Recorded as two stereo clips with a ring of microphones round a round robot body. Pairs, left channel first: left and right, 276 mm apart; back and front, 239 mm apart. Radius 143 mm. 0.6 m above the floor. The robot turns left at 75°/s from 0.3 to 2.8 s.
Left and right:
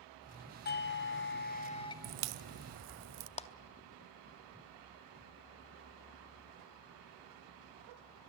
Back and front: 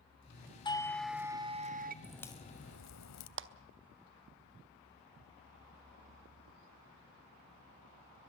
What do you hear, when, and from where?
0.7 s a doorbell: 120° left, 1.3 m; by 1.9 s 25° left, 1.3 m
2.0 s a crack: 85° right, 0.8 m; by 3.3 s 140° right, 0.8 m
3.4 s a clap: 25° left, 0.9 m